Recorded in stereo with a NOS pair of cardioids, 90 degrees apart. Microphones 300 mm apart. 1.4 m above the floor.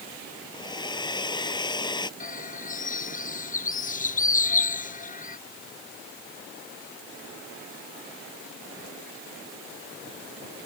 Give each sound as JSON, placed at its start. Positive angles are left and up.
{"t": 0.5, "sound": "a hair dryer", "azimuth_deg": 15}
{"t": 2.2, "sound": "a bird", "azimuth_deg": 25}